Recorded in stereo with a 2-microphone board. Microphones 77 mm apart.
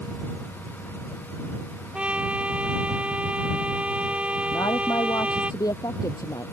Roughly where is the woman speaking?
Left.